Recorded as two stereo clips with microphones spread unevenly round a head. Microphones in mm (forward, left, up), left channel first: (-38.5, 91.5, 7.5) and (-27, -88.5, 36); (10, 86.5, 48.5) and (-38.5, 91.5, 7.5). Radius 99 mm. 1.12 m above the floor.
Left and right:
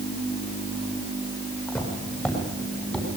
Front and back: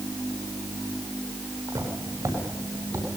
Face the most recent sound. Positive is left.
turn(degrees=175)